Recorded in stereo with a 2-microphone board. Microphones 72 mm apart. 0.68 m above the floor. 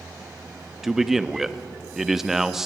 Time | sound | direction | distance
0.8 | a man speaking | 5° right (ahead or behind) | 0.5 m